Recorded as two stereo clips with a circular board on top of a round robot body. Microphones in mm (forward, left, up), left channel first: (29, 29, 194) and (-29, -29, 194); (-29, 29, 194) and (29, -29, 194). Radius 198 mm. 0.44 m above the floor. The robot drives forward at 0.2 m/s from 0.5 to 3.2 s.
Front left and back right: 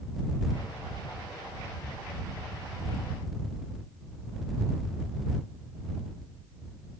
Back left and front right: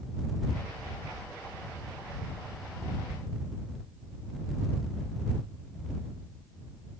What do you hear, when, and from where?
Only background noise.